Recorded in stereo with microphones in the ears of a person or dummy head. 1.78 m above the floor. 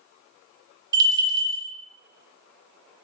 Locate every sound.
0.9 s a bell: 20° right (ahead or behind), 0.6 m